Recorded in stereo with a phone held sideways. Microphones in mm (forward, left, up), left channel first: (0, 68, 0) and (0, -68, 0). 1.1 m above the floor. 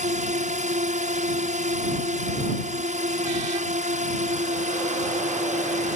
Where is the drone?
60° right (ahead or behind).